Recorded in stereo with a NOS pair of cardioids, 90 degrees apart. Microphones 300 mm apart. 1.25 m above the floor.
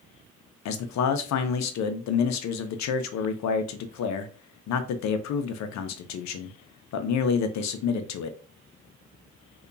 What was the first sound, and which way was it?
A man speaking, 65° left.